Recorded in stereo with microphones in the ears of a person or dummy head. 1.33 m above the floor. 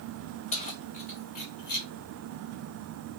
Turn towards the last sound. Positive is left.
turn(degrees=55)  # may be behind; listen again after turning